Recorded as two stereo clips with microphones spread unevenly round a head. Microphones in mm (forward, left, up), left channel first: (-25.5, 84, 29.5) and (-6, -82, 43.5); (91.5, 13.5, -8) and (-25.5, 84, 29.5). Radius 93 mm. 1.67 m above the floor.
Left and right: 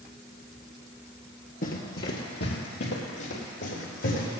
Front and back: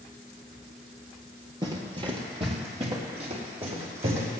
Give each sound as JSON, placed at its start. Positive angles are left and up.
{"t": 1.6, "sound": "running footsteps", "azimuth_deg": 125, "distance_m": 2.5}